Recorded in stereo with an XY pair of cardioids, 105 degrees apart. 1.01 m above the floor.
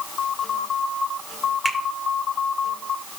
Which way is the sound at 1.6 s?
5° right.